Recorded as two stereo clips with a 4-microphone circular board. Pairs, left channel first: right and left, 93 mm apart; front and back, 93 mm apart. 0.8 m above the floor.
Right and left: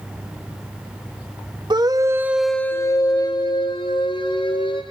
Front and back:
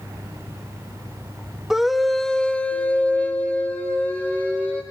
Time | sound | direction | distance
1.7 | a scream | 90° left | 1.5 m